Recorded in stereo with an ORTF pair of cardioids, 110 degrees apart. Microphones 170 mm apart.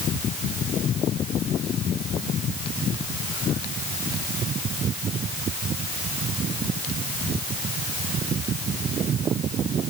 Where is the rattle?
No rattle in this recording.